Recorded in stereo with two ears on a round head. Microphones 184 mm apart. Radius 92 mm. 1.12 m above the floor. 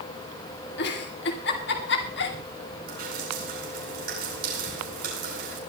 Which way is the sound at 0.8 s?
55° left (ahead or behind).